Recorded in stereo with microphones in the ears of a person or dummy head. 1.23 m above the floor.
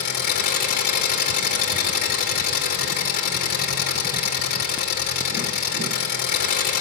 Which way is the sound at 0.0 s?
50° left (ahead or behind).